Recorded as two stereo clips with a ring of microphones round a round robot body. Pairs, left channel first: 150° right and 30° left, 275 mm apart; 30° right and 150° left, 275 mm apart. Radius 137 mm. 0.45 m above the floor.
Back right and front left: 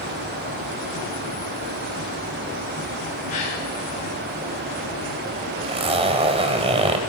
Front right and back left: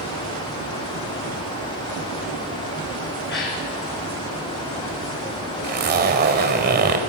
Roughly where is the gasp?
Right.